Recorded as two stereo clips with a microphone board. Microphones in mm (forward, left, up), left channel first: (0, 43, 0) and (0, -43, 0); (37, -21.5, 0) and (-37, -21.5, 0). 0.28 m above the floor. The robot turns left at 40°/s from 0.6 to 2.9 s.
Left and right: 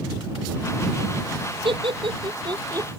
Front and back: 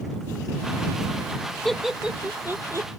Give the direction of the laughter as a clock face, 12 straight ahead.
3 o'clock.